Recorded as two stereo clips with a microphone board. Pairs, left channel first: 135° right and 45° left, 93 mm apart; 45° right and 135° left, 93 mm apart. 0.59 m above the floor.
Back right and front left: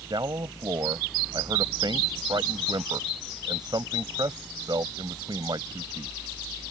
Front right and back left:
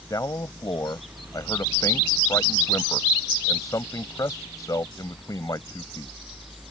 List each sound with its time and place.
0.1 s a man speaking: 5° left